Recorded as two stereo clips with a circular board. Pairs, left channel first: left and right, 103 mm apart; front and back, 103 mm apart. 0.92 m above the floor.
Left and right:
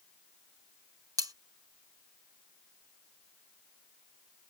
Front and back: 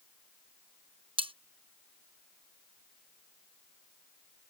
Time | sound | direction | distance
1.2 | cutlery clinking | 145° right | ?